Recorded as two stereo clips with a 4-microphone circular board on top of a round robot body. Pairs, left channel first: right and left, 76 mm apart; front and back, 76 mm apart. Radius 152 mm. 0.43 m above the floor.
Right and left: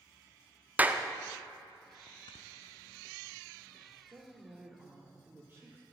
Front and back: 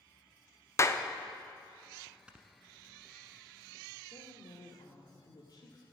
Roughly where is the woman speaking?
Ahead left.